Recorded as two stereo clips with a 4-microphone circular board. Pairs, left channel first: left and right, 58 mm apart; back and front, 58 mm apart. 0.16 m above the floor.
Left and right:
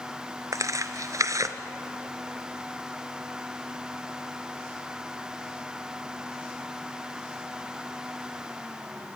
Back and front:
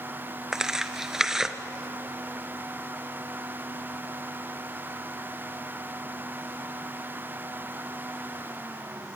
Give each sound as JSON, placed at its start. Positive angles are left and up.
{"t": 0.5, "sound": "tearing paper", "azimuth_deg": -80, "distance_m": 1.3}